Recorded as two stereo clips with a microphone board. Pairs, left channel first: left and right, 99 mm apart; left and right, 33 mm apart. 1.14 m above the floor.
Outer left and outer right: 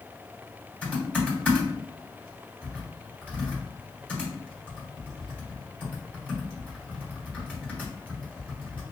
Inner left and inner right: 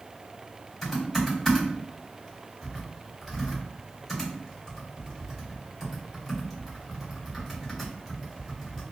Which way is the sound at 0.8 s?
15° left (ahead or behind).